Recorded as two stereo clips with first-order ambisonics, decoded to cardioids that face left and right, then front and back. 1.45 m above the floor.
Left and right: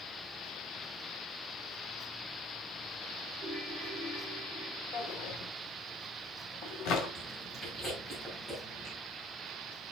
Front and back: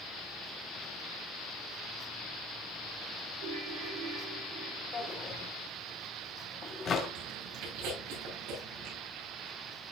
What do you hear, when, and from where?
3.4 s a ringtone: 165° right, 6 m
4.9 s a drawer: 60° left, 2 m
7.2 s chewing: 170° left, 6.5 m